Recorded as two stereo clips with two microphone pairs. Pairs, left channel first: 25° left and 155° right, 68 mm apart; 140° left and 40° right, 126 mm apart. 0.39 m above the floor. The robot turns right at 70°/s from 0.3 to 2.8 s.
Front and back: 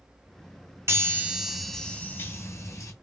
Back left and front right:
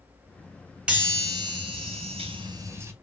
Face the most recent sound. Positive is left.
turn(degrees=15)